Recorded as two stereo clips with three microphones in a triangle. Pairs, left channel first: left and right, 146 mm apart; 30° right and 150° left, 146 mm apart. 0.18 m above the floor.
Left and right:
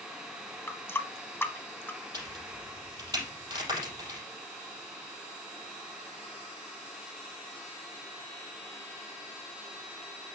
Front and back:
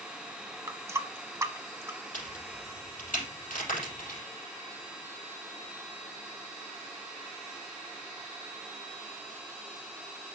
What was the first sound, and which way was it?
A running tap, 130° left.